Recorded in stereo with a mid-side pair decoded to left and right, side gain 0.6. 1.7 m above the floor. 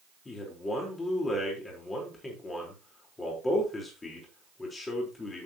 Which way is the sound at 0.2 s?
25° left.